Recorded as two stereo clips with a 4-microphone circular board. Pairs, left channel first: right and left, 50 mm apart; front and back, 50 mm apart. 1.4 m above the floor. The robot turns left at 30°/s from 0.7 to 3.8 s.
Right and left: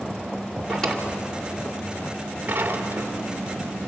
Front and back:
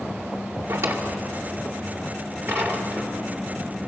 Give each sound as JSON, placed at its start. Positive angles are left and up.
{"t": 0.7, "sound": "a drawer", "azimuth_deg": -170, "distance_m": 2.0}